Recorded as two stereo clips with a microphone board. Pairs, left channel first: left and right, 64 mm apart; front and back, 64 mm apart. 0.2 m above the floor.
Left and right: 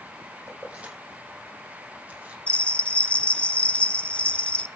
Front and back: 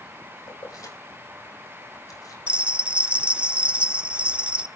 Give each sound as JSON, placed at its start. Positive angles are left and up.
{"t": 0.5, "sound": "keys jangling", "azimuth_deg": -20, "distance_m": 6.0}
{"t": 2.5, "sound": "a bell", "azimuth_deg": 130, "distance_m": 0.7}